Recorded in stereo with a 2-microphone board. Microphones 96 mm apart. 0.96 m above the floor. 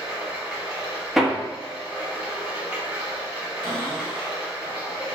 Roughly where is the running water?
Centre.